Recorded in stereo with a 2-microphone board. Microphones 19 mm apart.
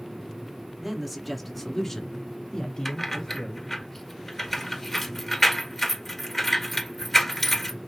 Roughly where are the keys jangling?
Centre.